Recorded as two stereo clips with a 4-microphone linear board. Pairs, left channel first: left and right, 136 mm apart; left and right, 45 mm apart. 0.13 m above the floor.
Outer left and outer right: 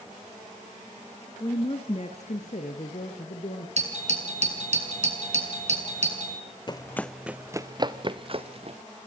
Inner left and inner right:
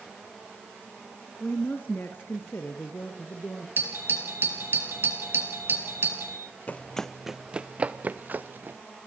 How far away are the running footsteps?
About 0.6 m.